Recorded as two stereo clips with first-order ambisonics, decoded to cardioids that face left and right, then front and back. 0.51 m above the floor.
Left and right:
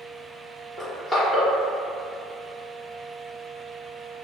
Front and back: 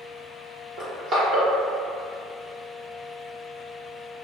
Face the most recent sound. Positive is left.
turn(degrees=165)